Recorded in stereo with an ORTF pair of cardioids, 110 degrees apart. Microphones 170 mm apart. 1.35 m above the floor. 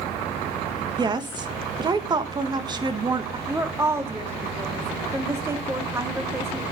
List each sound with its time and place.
1.0 s a woman speaking: 25° right, 2.0 m
3.5 s a woman speaking: 15° right, 2.5 m